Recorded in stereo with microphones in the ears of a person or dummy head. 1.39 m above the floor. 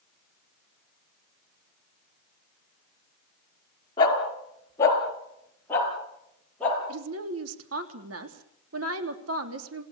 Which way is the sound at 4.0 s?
25° left (ahead or behind).